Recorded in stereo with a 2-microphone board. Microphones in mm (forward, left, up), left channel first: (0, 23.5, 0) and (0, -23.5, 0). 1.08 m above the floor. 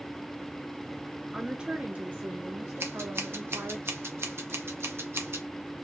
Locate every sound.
1.3 s a woman speaking: 5° right (ahead or behind), 0.6 m; by 3.8 s 70° right (ahead or behind), 1.5 m
2.8 s scissors: 60° right (ahead or behind), 0.8 m